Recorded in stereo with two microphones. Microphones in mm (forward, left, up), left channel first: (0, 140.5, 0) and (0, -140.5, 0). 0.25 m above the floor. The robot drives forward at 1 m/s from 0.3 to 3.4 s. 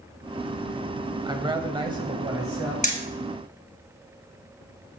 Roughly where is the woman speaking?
Centre.